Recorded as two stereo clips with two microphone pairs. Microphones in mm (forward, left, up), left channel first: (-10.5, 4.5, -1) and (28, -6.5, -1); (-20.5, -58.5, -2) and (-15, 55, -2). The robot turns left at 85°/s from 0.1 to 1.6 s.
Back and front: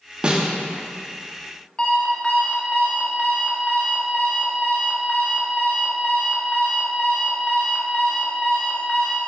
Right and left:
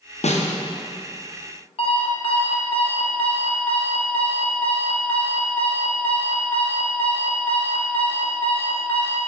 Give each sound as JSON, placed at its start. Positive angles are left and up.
{"t": 0.2, "sound": "a snare drum", "azimuth_deg": -80, "distance_m": 0.6}
{"t": 1.8, "sound": "an alarm clock", "azimuth_deg": -125, "distance_m": 0.8}